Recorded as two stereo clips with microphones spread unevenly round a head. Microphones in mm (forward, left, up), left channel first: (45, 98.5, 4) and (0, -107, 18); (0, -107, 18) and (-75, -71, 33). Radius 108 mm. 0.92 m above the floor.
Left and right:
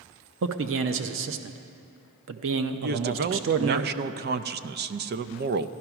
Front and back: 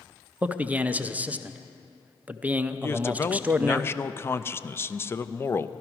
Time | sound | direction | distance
0.4 | a man speaking | 125° right | 0.7 m
2.8 | a man speaking | 70° right | 0.5 m